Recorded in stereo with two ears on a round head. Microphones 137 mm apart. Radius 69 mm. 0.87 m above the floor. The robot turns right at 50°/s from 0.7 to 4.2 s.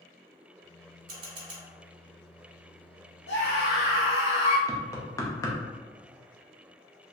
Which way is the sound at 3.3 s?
90° left.